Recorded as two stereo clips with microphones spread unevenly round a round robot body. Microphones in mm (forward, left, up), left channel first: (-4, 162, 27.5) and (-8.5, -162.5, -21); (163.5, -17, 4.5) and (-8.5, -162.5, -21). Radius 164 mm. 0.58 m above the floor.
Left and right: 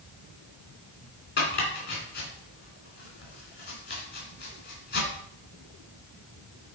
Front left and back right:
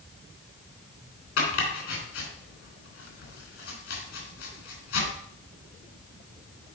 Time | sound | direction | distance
1.4 | chopping | 30° left | 3 m